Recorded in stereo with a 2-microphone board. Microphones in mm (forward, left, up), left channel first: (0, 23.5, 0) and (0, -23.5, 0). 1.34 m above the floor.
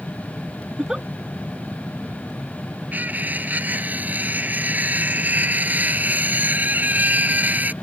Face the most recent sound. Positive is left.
turn(degrees=-40)  # may be behind; listen again after turning